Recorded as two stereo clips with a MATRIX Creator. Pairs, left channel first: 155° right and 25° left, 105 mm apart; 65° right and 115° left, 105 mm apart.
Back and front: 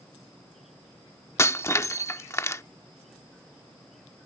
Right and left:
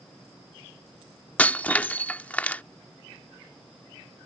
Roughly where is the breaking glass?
Behind right.